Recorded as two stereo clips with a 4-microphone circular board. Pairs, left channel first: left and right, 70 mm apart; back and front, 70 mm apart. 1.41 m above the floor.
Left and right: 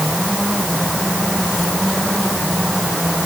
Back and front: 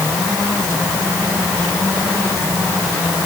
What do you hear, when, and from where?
Only background noise.